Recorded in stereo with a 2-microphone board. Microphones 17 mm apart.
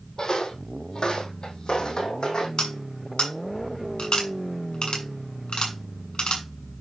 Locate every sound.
0.2 s footsteps: 45° left (ahead or behind), 2 m; by 2.5 s 50° left (ahead or behind), 3 m
2.6 s cutlery clinking: 65° left (ahead or behind), 5.5 m